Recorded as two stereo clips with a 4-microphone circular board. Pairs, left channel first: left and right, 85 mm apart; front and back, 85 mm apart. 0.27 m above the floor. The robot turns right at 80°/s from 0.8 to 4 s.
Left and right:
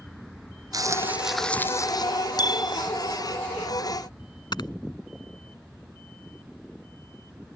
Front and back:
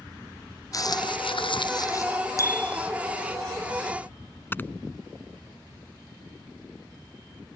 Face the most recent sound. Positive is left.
turn(degrees=65)